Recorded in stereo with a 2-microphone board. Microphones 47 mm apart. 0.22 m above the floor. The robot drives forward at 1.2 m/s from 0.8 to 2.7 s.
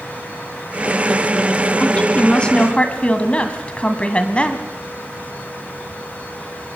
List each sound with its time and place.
1.8 s a woman speaking: 20° left (ahead or behind), 2.5 m; by 4.7 s 25° left (ahead or behind), 2.0 m